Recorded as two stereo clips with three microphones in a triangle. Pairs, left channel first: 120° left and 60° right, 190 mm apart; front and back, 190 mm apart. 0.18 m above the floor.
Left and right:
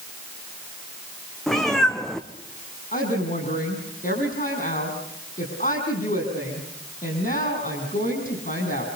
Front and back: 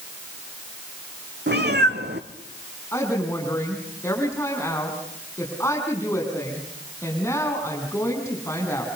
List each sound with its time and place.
1.5 s a cat meowing: 150° right, 1.9 m
2.9 s a woman speaking: 75° left, 8 m